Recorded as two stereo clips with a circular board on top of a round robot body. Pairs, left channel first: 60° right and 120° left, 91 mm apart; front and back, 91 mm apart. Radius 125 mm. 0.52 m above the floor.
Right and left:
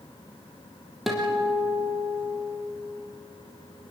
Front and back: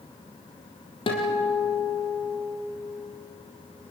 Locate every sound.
1.1 s a guitar: 30° left, 4 m